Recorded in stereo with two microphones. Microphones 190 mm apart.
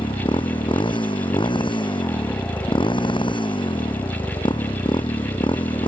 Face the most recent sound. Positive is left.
turn(degrees=25)  # may be behind; listen again after turning